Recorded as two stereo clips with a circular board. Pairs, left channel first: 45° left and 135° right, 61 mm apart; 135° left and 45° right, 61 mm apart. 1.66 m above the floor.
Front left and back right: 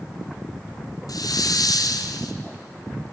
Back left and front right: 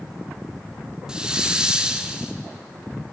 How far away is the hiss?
About 0.5 m.